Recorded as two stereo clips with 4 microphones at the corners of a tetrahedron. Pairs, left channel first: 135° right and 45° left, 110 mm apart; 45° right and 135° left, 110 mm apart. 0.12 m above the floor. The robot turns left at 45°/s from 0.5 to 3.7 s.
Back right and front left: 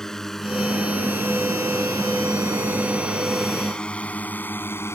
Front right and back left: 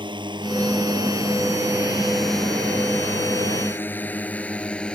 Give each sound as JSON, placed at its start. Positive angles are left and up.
{"t": 0.0, "sound": "a drone", "azimuth_deg": 140}